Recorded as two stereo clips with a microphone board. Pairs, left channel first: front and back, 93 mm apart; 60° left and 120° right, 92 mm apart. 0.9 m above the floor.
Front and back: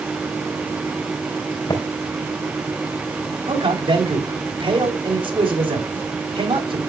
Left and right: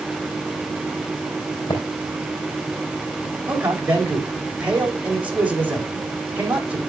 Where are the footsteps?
40° left, 4 m.